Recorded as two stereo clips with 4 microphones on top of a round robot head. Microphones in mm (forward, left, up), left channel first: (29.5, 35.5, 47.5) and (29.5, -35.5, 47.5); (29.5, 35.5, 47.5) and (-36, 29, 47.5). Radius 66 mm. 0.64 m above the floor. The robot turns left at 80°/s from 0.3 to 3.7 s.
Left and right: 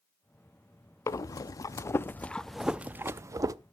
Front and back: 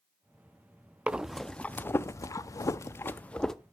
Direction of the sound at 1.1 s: 120° left.